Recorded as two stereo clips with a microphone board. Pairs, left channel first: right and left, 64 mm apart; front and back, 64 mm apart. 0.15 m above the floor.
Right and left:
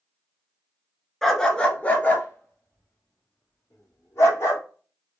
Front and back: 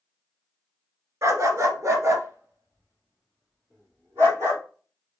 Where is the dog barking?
175° right, 0.8 m; by 4.6 s 135° right, 2.5 m.